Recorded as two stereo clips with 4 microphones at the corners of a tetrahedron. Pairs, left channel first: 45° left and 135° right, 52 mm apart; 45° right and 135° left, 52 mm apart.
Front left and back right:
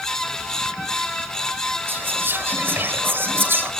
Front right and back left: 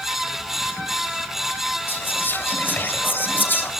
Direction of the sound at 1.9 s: 95° right.